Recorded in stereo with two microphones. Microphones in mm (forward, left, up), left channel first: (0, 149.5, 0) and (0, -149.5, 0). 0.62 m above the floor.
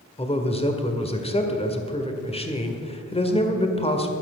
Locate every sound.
0.2 s a man speaking: 20° left (ahead or behind), 1.8 m